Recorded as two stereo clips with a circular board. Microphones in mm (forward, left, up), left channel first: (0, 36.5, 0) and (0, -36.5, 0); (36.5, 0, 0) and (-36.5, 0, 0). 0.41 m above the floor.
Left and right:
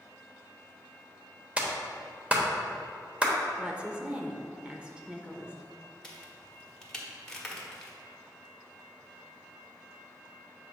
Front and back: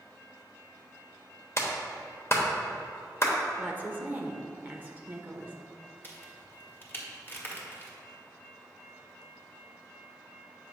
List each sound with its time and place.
1.6 s a clap: 25° right, 1.2 m
3.6 s a woman speaking: 150° right, 0.8 m
6.0 s a crack: 15° left, 1.3 m